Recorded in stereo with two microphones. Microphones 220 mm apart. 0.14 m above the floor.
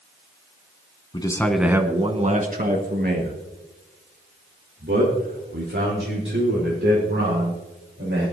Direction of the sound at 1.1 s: 20° left (ahead or behind).